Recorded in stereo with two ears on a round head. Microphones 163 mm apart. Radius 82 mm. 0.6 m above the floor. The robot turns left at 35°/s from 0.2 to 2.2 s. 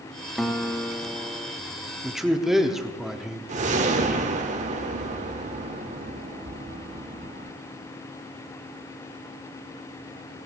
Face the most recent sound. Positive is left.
turn(degrees=-40)  # may be behind; listen again after turning